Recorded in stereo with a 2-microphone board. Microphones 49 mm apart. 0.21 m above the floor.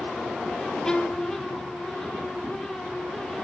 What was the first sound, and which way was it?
A violin, 10° left (ahead or behind).